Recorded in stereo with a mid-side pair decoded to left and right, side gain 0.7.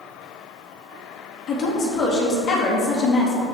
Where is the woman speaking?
30° left, 2.5 m.